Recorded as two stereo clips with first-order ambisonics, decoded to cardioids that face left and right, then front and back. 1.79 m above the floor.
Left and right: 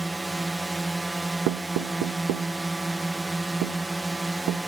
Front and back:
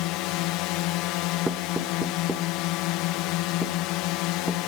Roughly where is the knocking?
Right.